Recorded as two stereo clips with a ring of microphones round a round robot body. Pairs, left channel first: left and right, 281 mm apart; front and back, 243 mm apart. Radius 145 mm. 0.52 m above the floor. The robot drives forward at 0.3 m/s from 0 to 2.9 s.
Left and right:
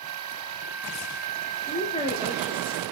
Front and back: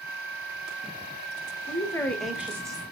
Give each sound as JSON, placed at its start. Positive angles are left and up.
{"t": 1.7, "sound": "a woman speaking", "azimuth_deg": 45, "distance_m": 0.7}